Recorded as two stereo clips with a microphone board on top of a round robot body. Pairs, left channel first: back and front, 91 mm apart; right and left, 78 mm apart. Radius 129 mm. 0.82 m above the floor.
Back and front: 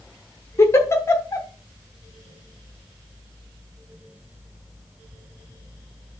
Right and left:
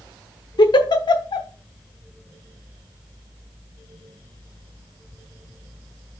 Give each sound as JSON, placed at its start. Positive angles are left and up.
{"t": 0.6, "sound": "a giggle", "azimuth_deg": -120, "distance_m": 0.9}